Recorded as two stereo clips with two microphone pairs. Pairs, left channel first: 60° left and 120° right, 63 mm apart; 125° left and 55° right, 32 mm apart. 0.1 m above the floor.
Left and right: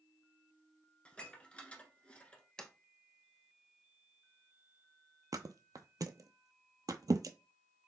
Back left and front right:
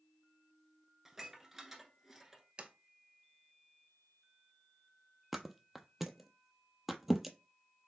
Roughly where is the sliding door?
Ahead.